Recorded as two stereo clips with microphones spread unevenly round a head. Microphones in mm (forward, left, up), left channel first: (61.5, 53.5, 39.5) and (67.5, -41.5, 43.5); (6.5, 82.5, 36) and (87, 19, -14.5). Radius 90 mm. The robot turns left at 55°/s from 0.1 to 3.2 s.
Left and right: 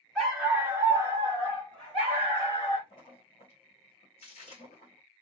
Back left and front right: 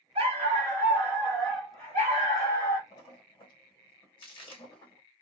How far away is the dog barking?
About 1.6 m.